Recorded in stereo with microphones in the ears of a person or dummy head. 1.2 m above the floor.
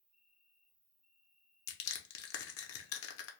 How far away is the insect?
About 1.5 m.